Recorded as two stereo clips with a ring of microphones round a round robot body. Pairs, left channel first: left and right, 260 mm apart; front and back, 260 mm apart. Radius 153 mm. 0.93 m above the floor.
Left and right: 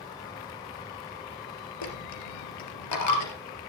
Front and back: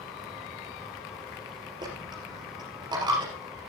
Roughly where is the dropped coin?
Left.